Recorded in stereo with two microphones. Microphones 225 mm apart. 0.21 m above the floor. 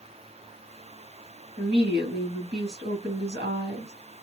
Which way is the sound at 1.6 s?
55° right (ahead or behind).